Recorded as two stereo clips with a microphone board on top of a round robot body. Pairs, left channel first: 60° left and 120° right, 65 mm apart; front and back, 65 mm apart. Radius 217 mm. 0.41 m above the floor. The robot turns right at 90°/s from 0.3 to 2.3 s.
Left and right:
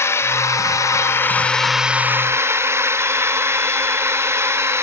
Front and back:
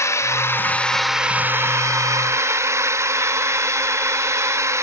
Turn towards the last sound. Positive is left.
turn(degrees=-155)